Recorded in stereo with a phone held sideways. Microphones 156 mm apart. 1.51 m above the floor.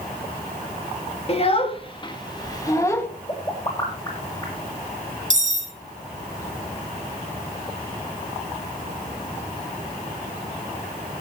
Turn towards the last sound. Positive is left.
turn(degrees=-50)  # may be behind; listen again after turning